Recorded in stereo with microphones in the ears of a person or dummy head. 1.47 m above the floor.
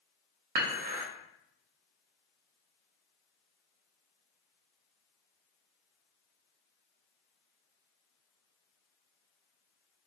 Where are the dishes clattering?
40° right (ahead or behind), 0.7 m.